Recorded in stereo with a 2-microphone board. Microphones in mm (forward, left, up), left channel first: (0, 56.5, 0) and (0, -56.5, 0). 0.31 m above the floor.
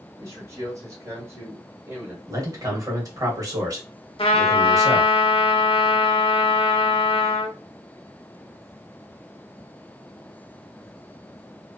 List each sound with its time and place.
0.2 s a man speaking: 30° right (ahead or behind), 1.5 m; by 2.2 s 20° right (ahead or behind), 1.6 m
2.3 s a man speaking: 30° right (ahead or behind), 1.1 m
4.2 s a trumpet: 50° left (ahead or behind), 0.6 m